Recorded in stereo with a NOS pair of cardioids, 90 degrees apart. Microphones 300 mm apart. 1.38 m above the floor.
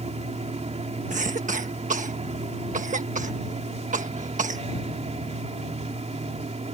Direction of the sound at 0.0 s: 20° right.